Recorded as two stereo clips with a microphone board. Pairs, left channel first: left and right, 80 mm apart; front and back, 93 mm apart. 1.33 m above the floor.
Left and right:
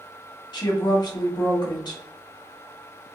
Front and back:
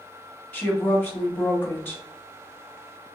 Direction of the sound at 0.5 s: 65° left.